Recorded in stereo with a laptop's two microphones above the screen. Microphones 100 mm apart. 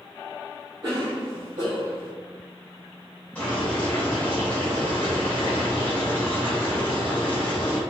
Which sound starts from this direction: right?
A cough, at 0.8 s.